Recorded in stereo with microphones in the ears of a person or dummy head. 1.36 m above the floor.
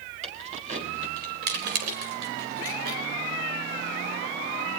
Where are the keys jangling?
40° right (ahead or behind), 4 m; by 3.0 s 85° right, 4.5 m.